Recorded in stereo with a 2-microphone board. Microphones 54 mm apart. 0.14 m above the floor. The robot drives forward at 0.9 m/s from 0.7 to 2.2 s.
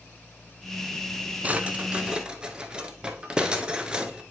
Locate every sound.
1.4 s a drawer: 25° right (ahead or behind), 0.6 m; by 4.2 s 15° right (ahead or behind), 0.9 m